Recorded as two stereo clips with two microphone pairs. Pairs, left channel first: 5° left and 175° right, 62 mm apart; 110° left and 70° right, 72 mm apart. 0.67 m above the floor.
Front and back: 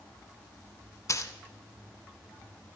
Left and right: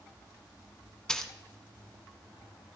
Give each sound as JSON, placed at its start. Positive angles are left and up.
{"t": 1.1, "sound": "a dropped coin", "azimuth_deg": 30, "distance_m": 1.0}